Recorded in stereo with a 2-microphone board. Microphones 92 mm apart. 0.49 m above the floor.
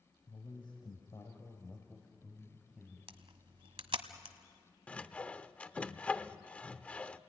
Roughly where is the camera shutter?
Right.